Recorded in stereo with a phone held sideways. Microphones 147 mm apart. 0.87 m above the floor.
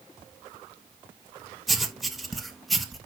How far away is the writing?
About 1.2 m.